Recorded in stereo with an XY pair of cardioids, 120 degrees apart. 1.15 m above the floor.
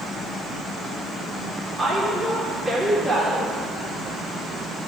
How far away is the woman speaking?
About 2.5 m.